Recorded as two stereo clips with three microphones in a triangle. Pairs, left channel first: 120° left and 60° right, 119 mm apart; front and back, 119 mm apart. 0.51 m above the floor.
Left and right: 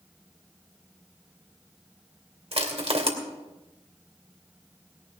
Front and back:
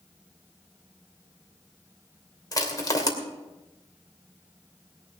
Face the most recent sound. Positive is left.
turn(degrees=-55)